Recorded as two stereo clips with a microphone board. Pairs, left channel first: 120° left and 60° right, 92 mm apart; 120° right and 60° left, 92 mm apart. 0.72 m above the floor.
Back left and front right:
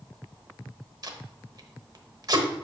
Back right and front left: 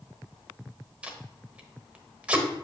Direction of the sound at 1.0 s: 15° right.